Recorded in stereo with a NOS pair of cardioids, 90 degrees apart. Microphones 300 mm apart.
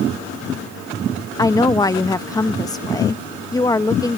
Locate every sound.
1.4 s a woman speaking: 15° left